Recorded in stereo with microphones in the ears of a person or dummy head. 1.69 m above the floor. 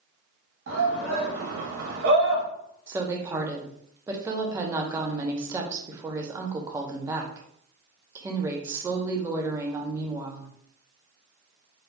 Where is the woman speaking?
15° right (ahead or behind), 0.7 m.